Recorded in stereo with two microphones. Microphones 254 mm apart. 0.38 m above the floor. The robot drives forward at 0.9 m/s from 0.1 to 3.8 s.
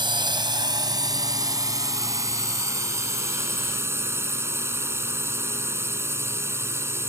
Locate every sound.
0.0 s a drone: 20° right (ahead or behind); by 7.1 s 10° right (ahead or behind)